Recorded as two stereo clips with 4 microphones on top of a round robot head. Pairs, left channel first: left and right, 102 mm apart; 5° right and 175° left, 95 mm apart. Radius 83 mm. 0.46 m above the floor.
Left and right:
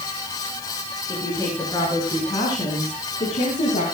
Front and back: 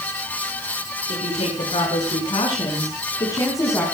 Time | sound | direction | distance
1.1 | a woman speaking | 15° left | 6 m